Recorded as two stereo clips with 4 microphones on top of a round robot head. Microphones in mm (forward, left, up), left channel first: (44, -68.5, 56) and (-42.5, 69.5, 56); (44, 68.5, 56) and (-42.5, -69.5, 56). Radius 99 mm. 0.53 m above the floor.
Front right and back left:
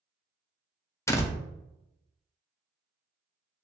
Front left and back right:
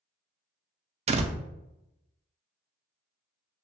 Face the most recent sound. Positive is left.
turn(degrees=-125)